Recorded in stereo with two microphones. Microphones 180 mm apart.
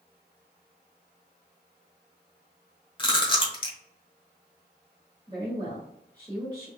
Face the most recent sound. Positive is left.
turn(degrees=-25)  # may be behind; listen again after turning